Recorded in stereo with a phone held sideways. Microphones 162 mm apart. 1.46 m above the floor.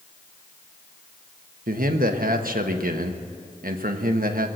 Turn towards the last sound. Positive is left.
turn(degrees=-70)  # may be behind; listen again after turning